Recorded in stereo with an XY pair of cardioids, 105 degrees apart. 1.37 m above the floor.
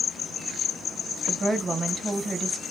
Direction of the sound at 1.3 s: 25° right.